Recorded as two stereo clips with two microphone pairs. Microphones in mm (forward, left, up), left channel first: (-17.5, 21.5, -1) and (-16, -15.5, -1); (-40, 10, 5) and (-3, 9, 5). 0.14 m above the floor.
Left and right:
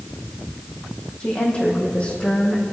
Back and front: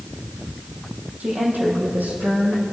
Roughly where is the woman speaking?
Ahead left.